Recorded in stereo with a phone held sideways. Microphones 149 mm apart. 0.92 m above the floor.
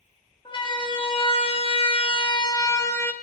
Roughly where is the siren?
Left.